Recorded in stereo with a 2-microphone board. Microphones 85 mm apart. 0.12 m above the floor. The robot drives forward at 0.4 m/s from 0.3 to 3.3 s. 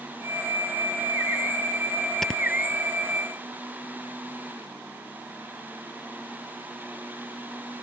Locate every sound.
2.2 s snoring: 5° left (ahead or behind); by 2.4 s 10° left (ahead or behind)